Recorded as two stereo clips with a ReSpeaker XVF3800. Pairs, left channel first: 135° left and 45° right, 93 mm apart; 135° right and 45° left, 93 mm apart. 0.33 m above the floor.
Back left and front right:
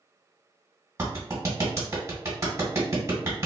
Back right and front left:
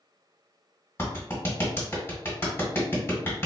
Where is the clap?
85° right, 1.5 m.